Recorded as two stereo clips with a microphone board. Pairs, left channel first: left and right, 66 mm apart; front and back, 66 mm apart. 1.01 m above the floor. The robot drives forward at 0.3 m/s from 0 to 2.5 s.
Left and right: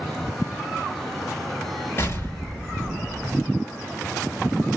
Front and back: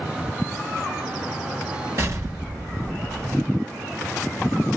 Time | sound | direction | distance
2.0 | an explosion | 140° left | 3 m